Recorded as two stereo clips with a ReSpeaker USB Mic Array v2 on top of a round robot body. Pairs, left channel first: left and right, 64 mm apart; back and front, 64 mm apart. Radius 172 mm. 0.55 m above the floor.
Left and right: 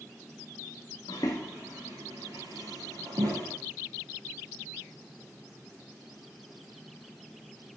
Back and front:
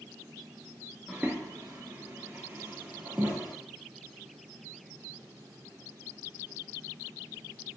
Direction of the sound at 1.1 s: 90° left.